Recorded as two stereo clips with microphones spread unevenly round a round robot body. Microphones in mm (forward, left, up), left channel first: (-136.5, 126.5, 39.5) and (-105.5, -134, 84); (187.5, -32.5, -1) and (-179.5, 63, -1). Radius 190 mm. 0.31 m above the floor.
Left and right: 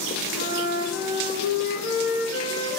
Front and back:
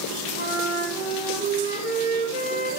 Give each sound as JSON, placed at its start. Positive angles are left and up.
{"t": 0.3, "sound": "a flute", "azimuth_deg": 95, "distance_m": 2.0}